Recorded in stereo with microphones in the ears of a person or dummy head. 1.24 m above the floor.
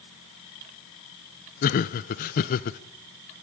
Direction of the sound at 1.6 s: 40° left (ahead or behind).